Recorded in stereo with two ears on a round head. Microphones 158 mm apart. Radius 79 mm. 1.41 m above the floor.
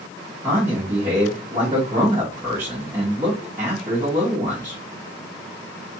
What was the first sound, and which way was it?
A man speaking, 20° right (ahead or behind).